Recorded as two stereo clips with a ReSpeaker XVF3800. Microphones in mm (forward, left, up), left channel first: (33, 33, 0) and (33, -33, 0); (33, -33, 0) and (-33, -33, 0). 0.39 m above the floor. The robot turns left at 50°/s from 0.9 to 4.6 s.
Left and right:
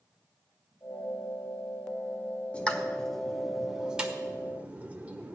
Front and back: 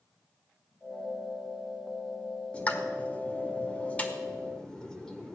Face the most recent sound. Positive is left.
turn(degrees=-60)